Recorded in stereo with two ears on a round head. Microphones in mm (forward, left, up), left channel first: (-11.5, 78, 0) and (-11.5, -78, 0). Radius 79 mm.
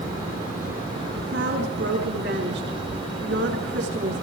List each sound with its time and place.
1.2 s a woman speaking: 75° right (ahead or behind), 7.5 m